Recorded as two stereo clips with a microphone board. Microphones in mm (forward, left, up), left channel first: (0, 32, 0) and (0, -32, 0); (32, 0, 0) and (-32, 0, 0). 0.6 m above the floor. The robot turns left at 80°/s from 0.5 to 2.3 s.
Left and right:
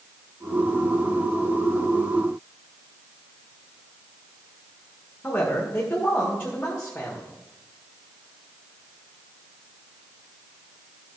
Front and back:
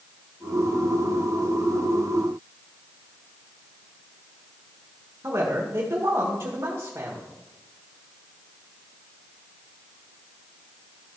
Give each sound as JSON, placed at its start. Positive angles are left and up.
{"t": 5.2, "sound": "a man speaking", "azimuth_deg": 150, "distance_m": 1.7}